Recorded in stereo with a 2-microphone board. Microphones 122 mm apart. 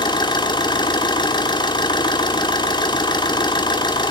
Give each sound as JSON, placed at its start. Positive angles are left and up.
{"t": 0.0, "sound": "an engine running", "side_deg": 35, "distance_m": 1.8}